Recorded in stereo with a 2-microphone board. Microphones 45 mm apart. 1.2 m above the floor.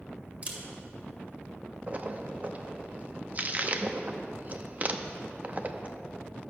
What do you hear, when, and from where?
0.4 s a camera shutter: 30° right (ahead or behind), 1.6 m
1.9 s a splash: 35° right (ahead or behind), 0.6 m